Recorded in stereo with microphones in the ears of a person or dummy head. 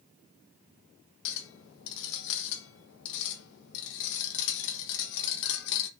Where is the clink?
70° left (ahead or behind), 1.1 m.